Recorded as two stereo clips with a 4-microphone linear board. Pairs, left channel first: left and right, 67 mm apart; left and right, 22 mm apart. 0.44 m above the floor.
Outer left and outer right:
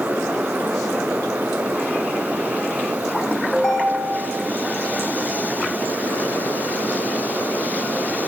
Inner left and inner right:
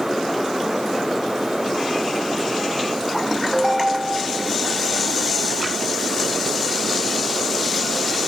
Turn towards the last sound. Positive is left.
turn(degrees=0)  # may be behind; listen again after turning